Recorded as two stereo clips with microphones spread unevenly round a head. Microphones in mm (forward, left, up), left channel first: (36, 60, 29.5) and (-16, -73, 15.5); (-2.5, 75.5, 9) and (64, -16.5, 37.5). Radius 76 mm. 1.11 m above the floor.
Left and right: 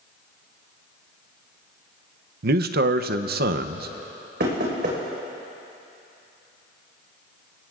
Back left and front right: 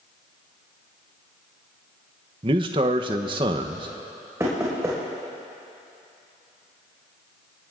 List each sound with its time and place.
2.4 s a man speaking: 115° right, 0.7 m
4.4 s knocking: 125° right, 4.5 m